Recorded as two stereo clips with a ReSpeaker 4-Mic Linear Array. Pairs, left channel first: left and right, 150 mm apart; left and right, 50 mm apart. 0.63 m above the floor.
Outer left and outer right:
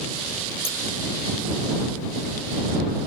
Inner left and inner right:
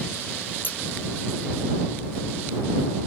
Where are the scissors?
40° left (ahead or behind).